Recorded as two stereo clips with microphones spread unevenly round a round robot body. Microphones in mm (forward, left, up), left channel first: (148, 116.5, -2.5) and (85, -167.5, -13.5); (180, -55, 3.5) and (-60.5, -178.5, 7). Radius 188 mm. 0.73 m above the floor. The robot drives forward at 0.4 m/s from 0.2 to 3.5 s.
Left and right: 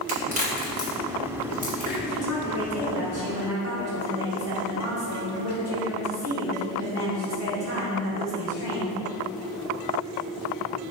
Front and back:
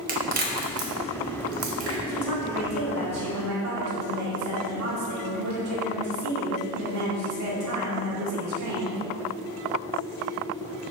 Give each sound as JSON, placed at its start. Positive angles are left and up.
{"t": 0.1, "sound": "a crack", "azimuth_deg": -135, "distance_m": 1.0}
{"t": 2.1, "sound": "a woman speaking", "azimuth_deg": -135, "distance_m": 1.8}